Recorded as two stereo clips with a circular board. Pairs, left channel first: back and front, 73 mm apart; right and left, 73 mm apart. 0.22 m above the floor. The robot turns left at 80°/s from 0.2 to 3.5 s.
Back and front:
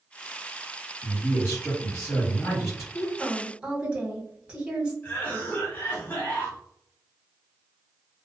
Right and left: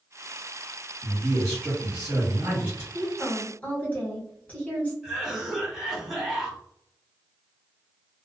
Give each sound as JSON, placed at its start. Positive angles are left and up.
{"t": 1.0, "sound": "a man speaking", "azimuth_deg": -130, "distance_m": 1.4}
{"t": 2.9, "sound": "a woman speaking", "azimuth_deg": -10, "distance_m": 1.2}
{"t": 5.0, "sound": "a cough", "azimuth_deg": 165, "distance_m": 1.1}